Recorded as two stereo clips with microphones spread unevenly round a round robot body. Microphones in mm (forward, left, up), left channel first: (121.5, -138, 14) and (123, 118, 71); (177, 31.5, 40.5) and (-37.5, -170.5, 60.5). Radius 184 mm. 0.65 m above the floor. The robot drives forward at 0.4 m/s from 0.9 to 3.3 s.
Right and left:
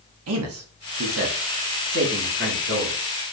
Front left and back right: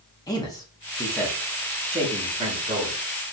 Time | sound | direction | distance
0.3 | a man speaking | 110° left | 0.7 m